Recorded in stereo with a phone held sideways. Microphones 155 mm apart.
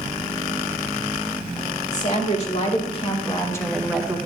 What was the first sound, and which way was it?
A woman speaking, 50° left (ahead or behind).